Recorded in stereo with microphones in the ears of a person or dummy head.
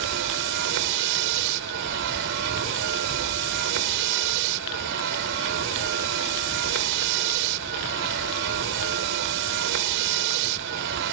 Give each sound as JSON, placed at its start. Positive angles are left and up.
{"t": 0.0, "sound": "a vehicle", "side_deg": -65}